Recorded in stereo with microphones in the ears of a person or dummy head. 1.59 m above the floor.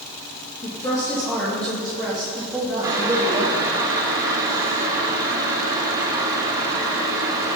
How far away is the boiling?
About 2.5 m.